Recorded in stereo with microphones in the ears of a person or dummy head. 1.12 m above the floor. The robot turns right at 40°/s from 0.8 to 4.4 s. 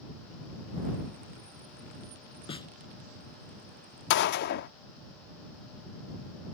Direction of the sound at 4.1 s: 60° left (ahead or behind).